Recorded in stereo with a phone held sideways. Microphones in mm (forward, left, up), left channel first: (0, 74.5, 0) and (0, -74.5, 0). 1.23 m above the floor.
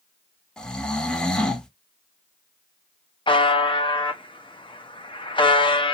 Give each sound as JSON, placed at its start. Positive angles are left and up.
{"t": 0.6, "sound": "snoring", "side_deg": 5, "distance_m": 0.6}
{"t": 3.3, "sound": "a buzzer", "side_deg": 35, "distance_m": 0.6}